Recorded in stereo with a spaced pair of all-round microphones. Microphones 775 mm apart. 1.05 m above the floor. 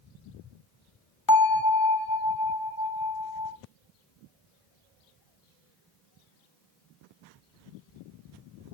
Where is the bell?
25° left (ahead or behind), 0.9 m.